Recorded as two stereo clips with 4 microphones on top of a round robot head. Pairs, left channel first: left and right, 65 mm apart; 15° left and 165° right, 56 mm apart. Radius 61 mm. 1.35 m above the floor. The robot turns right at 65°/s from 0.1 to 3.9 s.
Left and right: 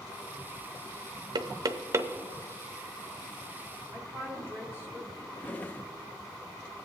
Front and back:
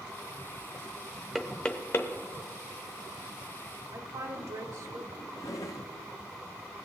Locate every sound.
1.4 s knocking: 85° right, 0.7 m; by 2.1 s 35° right, 0.7 m
3.9 s a woman speaking: 160° right, 0.8 m
5.3 s a drawer: 30° left, 0.7 m